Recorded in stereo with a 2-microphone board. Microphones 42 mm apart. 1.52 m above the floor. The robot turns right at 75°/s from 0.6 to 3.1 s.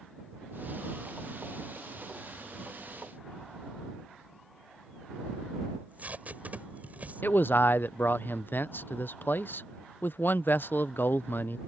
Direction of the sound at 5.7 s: 40° right (ahead or behind).